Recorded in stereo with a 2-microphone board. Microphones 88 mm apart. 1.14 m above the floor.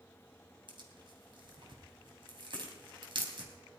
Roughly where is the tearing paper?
Right.